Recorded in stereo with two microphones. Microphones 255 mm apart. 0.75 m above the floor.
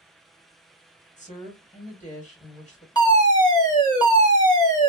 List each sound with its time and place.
1.2 s a woman speaking: 30° left (ahead or behind), 1.7 m
3.0 s a fire alarm: 15° left (ahead or behind), 1.4 m